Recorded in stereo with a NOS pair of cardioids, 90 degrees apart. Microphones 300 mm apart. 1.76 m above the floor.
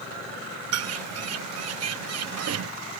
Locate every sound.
0.7 s a bird: 60° right